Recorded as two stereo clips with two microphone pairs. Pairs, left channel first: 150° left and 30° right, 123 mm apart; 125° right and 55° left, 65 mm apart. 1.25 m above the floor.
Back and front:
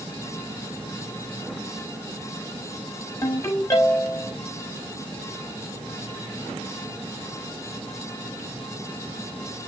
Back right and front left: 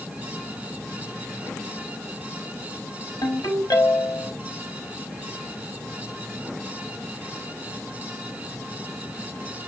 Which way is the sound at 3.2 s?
145° right.